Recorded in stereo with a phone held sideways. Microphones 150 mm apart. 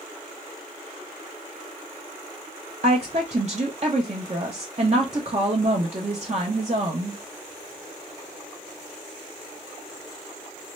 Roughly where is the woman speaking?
Right.